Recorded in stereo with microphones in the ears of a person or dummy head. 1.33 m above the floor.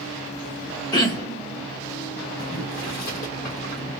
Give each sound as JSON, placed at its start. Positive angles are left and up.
{"t": 0.9, "sound": "throat clearing", "side_deg": 25, "distance_m": 0.8}
{"t": 2.4, "sound": "boiling", "side_deg": 55, "distance_m": 1.5}